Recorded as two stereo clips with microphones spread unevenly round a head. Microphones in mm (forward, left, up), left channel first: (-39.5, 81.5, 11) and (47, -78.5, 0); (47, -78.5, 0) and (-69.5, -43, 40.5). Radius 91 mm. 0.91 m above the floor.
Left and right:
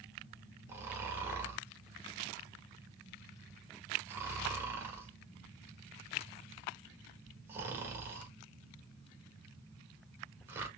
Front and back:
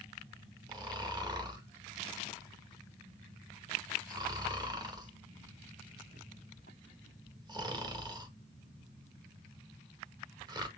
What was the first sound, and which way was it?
Snoring, 135° right.